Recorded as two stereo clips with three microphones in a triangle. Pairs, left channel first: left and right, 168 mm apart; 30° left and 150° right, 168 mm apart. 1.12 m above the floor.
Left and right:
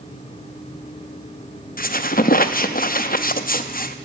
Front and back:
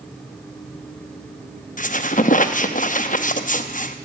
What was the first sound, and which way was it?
A squeak, 65° left.